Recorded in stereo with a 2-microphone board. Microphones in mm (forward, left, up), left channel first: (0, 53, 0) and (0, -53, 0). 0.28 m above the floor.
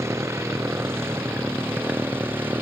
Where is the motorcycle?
25° right (ahead or behind); by 2.6 s 20° right (ahead or behind).